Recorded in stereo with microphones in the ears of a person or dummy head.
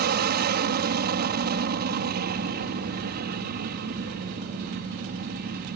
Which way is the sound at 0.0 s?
45° right (ahead or behind).